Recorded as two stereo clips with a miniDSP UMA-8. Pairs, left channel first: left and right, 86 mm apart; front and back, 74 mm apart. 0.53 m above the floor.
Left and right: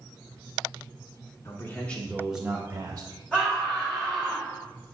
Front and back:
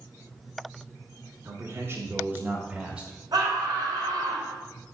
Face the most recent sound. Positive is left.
turn(degrees=165)